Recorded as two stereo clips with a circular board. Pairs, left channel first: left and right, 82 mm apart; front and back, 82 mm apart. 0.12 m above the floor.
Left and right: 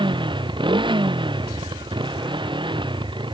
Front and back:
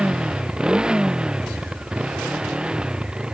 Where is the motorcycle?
100° right.